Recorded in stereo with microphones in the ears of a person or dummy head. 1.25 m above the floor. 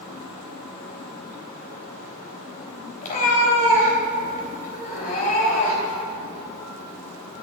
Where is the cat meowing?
40° left (ahead or behind), 3 m.